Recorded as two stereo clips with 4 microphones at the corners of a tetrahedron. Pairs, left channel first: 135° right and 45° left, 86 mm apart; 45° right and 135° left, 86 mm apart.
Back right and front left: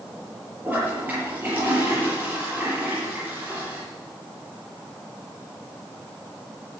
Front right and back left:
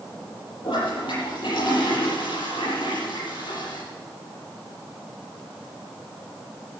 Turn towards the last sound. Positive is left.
turn(degrees=-25)